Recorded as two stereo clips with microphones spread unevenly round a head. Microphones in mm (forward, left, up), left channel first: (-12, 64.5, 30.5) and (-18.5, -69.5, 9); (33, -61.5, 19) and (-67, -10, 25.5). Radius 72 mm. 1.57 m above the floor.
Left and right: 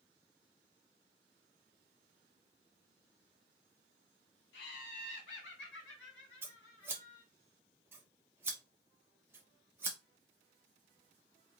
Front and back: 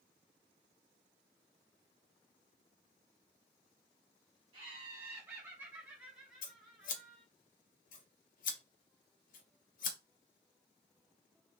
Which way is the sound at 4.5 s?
90° left.